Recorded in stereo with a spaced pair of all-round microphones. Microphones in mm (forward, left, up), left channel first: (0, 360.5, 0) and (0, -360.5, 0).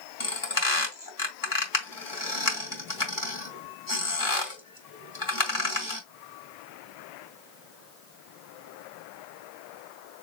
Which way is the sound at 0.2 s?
25° left (ahead or behind).